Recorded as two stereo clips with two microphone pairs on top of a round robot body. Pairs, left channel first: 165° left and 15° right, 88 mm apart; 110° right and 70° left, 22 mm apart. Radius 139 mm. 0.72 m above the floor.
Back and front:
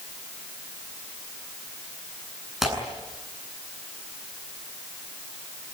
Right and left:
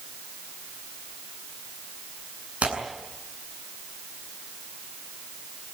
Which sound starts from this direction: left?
Tearing paper, at 2.6 s.